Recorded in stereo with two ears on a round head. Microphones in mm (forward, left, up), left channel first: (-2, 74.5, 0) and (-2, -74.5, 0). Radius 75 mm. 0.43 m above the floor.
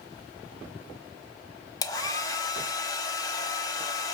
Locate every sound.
1.8 s a hair dryer: 20° left (ahead or behind), 1.0 m